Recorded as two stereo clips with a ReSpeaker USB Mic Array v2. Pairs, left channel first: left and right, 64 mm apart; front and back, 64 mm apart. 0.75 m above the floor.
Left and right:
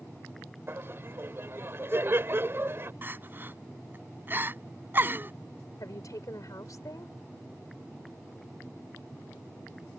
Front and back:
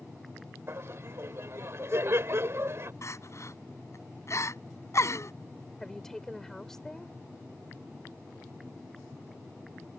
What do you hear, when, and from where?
0.7 s laughter: 135° right
3.0 s crying: 35° right
5.8 s a woman speaking: 85° left